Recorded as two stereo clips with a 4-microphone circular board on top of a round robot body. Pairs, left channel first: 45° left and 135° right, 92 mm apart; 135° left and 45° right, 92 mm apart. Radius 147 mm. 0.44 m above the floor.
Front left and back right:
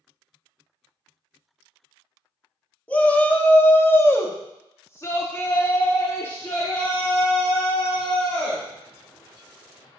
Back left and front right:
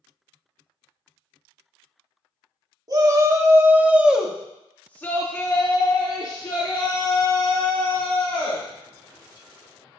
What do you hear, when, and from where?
2.9 s a shout: 25° right, 1.7 m; by 8.7 s 115° left, 3.5 m